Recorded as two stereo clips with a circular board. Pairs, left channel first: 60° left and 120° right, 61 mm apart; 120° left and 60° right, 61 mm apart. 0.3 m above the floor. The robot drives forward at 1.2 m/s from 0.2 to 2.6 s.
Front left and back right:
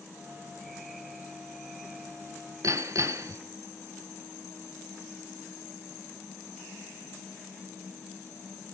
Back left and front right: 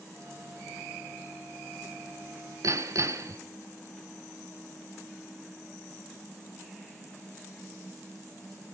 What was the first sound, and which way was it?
Hammering, 90° right.